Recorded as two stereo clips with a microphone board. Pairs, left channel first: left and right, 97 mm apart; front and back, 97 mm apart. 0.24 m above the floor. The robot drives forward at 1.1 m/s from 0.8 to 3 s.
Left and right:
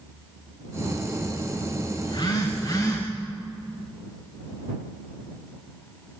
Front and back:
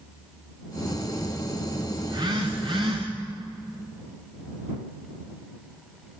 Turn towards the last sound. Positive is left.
turn(degrees=145)